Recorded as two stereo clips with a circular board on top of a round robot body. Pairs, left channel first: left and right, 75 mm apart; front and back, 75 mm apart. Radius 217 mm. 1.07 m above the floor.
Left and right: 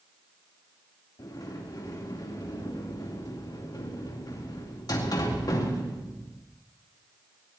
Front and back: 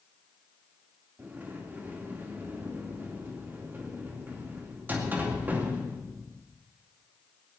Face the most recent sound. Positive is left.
turn(degrees=115)